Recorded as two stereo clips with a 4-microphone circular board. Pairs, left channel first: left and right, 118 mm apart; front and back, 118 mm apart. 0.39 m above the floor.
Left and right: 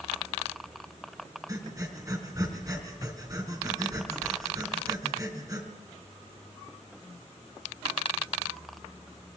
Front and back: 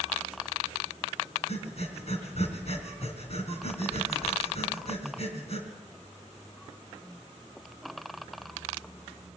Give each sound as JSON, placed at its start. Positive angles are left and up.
{"t": 1.5, "sound": "breathing", "azimuth_deg": -30, "distance_m": 3.5}